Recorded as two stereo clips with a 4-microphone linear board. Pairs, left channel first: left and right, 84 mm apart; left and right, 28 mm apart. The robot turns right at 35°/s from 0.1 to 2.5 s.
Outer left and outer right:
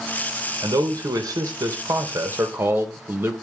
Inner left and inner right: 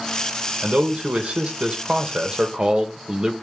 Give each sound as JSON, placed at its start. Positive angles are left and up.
{"t": 0.6, "sound": "a man speaking", "azimuth_deg": -100, "distance_m": 1.0}